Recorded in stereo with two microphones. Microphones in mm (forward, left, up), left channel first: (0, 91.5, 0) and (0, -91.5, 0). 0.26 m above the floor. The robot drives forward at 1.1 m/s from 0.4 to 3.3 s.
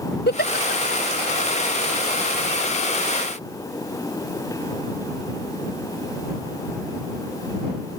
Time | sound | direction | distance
0.3 | a giggle | 70° left (ahead or behind) | ?